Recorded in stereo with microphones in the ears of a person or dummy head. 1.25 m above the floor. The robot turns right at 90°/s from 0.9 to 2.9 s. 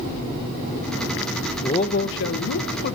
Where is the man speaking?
25° left, 0.6 m; by 3.0 s 140° left, 0.6 m.